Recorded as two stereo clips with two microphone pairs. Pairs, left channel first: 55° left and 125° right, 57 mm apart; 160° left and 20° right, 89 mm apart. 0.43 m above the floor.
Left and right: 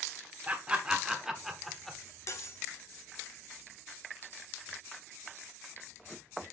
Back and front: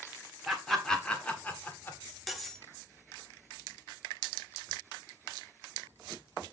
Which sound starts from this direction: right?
Laughter, at 0.5 s.